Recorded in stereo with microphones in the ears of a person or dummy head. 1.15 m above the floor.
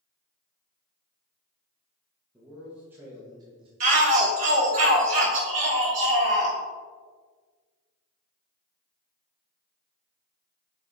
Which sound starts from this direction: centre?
A man speaking, at 2.3 s.